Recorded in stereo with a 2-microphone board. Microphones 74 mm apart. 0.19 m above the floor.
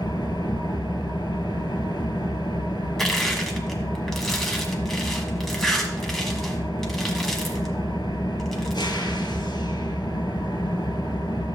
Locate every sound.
0.0 s an engine running: 75° left (ahead or behind), 1.5 m
3.0 s crushing: 5° left (ahead or behind), 1.5 m